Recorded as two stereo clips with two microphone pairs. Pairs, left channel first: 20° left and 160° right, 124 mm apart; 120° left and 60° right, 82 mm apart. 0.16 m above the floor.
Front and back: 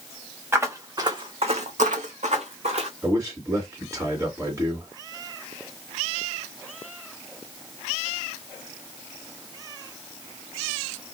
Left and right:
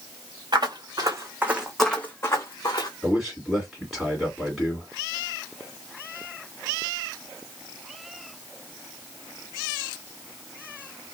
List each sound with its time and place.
0.5 s footsteps: 90° right, 1.0 m; by 2.9 s 160° left, 1.1 m
3.0 s a man speaking: 145° right, 1.7 m